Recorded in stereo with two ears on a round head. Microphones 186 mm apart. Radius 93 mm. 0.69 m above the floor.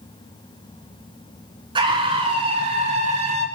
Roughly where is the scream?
Right.